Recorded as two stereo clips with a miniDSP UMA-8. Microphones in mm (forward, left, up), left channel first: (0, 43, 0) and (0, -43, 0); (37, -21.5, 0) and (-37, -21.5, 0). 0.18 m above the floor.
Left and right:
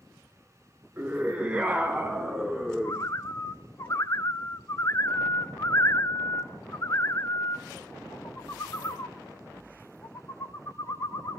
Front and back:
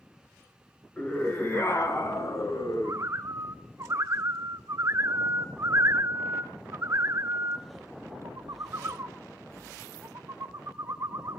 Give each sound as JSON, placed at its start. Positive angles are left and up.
{"t": 1.0, "sound": "a scream", "azimuth_deg": -45, "distance_m": 1.8}
{"t": 2.8, "sound": "a bird", "azimuth_deg": 140, "distance_m": 0.6}